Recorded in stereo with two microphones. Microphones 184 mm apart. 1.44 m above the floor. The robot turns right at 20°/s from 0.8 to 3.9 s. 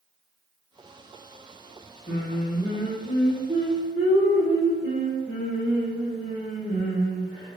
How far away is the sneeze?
No sneeze in this recording.